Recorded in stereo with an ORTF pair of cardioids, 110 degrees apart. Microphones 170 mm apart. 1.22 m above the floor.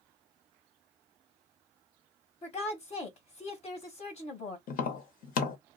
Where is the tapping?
60° left, 0.9 m.